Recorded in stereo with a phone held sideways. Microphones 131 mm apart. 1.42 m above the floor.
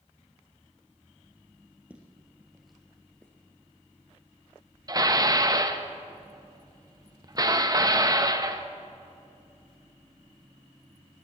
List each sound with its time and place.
1.9 s footsteps: 10° right (ahead or behind), 1.9 m; by 3.3 s 10° left (ahead or behind), 1.4 m
4.9 s dishes clattering: 30° right (ahead or behind), 0.7 m